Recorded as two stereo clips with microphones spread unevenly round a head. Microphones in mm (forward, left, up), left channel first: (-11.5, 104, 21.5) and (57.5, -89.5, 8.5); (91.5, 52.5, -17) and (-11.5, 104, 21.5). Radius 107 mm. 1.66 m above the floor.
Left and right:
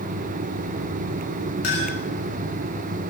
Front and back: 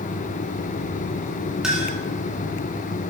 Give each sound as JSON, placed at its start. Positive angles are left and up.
{"t": 1.6, "sound": "a clink", "azimuth_deg": 70, "distance_m": 6.5}